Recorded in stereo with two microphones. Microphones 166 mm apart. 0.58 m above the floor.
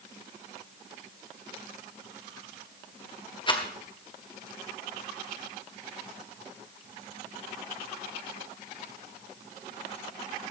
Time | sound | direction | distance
3.5 | a rattle | 30° left (ahead or behind) | 1.6 m